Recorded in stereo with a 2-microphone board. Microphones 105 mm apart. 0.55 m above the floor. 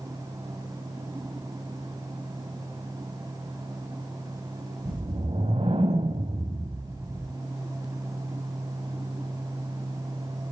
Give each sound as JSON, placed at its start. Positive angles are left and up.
{"t": 4.8, "sound": "a whoosh", "side_deg": -60, "distance_m": 1.0}